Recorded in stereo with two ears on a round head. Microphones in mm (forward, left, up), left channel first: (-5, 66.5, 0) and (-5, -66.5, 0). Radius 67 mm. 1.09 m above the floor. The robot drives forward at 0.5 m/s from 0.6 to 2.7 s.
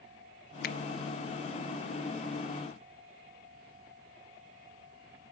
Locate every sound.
0.6 s a finger snap: 60° left (ahead or behind), 0.9 m